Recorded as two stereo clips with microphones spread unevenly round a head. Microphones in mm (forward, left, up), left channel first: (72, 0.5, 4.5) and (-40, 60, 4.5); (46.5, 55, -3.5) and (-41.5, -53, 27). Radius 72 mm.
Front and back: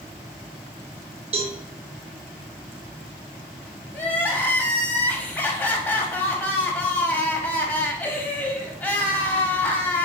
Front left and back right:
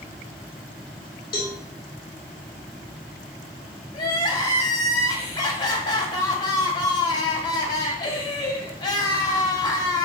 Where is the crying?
45° left, 0.7 m.